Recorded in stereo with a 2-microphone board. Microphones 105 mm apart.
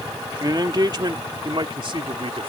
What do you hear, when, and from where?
0.4 s a man speaking: 40° right (ahead or behind); by 2.5 s 60° right (ahead or behind)